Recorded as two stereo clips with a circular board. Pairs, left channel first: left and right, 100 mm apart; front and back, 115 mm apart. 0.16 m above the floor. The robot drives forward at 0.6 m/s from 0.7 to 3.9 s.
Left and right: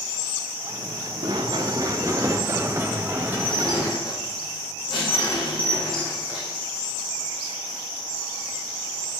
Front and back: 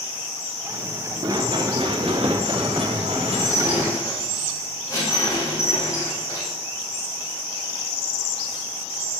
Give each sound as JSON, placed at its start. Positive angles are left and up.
{"t": 1.2, "sound": "running footsteps", "azimuth_deg": -125, "distance_m": 1.7}
{"t": 3.3, "sound": "dishes clattering", "azimuth_deg": 60, "distance_m": 5.0}